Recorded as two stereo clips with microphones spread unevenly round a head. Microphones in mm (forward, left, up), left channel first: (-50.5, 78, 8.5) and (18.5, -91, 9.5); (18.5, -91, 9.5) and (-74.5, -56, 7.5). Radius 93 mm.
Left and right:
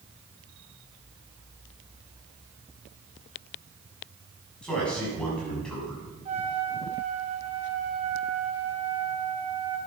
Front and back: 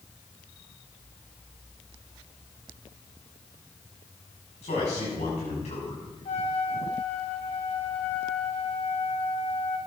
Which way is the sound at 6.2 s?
10° right.